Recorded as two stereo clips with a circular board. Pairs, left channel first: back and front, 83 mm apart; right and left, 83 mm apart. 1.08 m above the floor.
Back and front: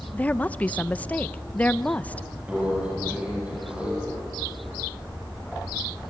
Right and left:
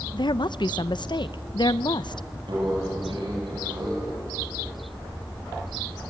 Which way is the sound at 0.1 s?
110° right.